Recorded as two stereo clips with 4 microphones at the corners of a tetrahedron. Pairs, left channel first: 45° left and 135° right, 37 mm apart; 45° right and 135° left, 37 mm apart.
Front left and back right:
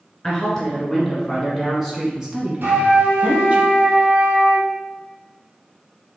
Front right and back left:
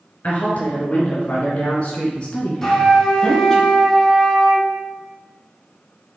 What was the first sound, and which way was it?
A woman speaking, 25° right.